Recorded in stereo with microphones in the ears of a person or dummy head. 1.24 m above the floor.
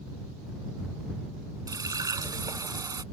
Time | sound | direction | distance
1.7 | a running tap | 20° right (ahead or behind) | ?